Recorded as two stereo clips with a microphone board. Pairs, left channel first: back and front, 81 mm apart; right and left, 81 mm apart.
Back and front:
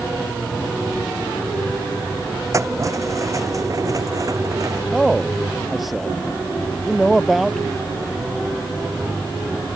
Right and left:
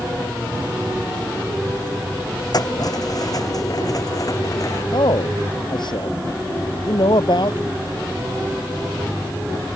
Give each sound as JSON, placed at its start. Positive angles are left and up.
{"t": 2.5, "sound": "keys jangling", "azimuth_deg": -50}
{"t": 4.9, "sound": "a man speaking", "azimuth_deg": -90}